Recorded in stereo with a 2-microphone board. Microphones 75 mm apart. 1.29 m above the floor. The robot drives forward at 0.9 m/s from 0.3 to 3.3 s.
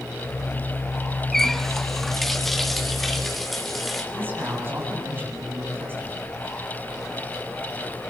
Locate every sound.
1.3 s a running tap: 5° left (ahead or behind), 0.7 m; by 4.0 s centre (ahead or behind), 2.5 m
4.1 s a man speaking: 30° right (ahead or behind), 9 m